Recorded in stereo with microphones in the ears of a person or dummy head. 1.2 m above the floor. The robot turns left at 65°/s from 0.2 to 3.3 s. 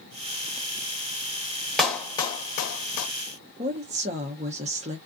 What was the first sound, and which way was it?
A clap, 5° left (ahead or behind).